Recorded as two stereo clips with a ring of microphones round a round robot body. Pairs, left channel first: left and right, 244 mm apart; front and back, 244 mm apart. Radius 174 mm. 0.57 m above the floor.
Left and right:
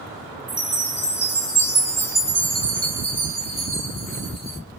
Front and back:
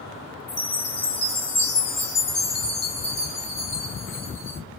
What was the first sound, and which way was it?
A chime, 25° left.